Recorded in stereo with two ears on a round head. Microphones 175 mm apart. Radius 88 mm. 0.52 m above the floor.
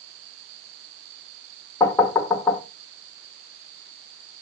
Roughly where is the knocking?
Centre.